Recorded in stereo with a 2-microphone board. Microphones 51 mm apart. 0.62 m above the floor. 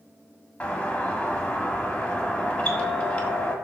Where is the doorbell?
25° left (ahead or behind), 1.7 m.